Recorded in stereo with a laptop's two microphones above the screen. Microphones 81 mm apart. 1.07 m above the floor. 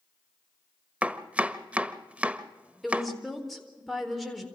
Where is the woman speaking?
Centre (ahead or behind), 4 m.